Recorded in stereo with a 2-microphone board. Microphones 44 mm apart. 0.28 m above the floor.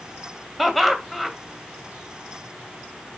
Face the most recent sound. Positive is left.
turn(degrees=0)  # may be behind; listen again after turning